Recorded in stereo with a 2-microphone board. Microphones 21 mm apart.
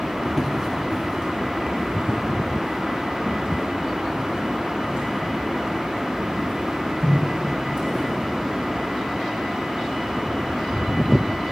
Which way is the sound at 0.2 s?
25° right (ahead or behind).